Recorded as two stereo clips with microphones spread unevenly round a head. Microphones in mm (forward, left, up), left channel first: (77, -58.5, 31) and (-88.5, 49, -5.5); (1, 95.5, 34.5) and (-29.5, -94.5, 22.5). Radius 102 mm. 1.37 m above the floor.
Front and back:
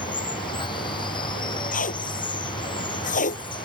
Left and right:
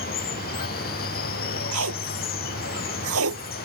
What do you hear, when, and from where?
0.0 s running water: 35° left
1.7 s tape being pulled: 85° right